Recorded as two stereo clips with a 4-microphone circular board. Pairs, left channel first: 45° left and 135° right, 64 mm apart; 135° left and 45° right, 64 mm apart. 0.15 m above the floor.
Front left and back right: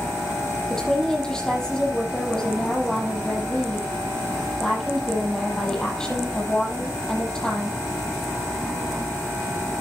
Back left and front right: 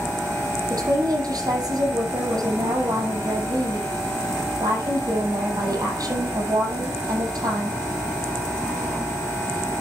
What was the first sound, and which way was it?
A woman speaking, 35° right.